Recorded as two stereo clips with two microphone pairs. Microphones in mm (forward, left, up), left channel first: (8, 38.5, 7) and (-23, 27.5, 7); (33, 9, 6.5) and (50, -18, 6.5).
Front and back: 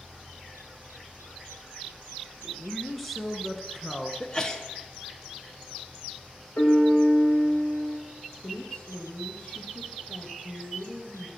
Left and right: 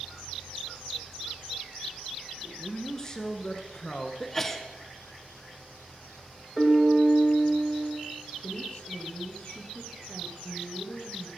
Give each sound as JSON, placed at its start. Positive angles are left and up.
{"t": 2.4, "sound": "a man speaking", "azimuth_deg": 100, "distance_m": 1.2}
{"t": 4.2, "sound": "a sneeze", "azimuth_deg": 60, "distance_m": 1.2}
{"t": 6.6, "sound": "a piano", "azimuth_deg": 30, "distance_m": 2.5}
{"t": 8.4, "sound": "a woman speaking", "azimuth_deg": 75, "distance_m": 3.0}